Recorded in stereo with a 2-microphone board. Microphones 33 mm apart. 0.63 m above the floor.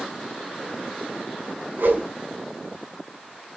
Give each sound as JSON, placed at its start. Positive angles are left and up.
{"t": 1.8, "sound": "a whoosh", "side_deg": -70, "distance_m": 5.0}